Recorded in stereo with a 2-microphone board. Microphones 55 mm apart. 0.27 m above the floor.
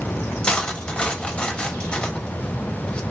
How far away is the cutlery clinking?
About 0.5 m.